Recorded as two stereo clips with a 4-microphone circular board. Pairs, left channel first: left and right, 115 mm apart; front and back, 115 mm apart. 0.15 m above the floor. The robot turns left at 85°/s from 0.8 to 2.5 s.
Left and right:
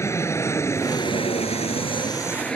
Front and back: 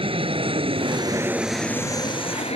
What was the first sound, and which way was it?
An aircraft, 155° left.